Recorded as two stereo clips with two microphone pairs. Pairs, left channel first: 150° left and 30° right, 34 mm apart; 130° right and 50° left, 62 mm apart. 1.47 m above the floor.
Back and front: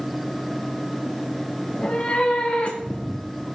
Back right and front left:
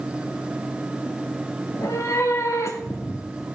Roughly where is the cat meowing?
Behind.